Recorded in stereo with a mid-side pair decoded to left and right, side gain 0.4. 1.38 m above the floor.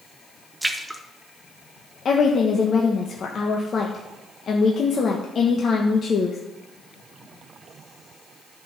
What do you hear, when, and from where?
0.6 s a splash: 10° right, 1.1 m
2.0 s a woman speaking: 55° left, 1.2 m